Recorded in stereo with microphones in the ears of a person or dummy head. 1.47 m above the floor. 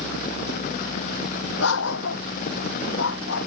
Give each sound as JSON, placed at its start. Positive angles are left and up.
{"t": 1.6, "sound": "a dog barking", "side_deg": 80}